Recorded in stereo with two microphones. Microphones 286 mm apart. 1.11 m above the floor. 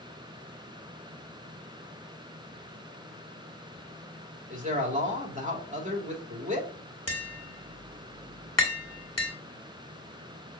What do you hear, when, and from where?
4.5 s a man speaking: 25° right (ahead or behind), 2.5 m
7.1 s tapping: 65° left (ahead or behind), 2 m